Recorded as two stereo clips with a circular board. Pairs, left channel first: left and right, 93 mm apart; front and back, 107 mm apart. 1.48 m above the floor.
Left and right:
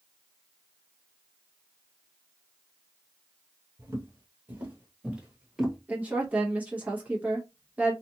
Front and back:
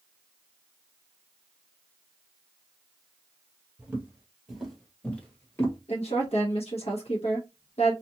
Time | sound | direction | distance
3.8 | footsteps | 120° right | 1.7 m
5.9 | a woman speaking | 15° right | 0.9 m